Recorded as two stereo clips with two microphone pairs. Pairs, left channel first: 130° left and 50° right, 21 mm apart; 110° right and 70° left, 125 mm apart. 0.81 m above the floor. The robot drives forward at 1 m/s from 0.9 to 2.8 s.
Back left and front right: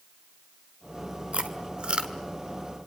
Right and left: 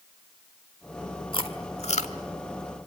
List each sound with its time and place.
1.3 s chewing: 65° right, 1.8 m; by 2.1 s 90° right, 1.6 m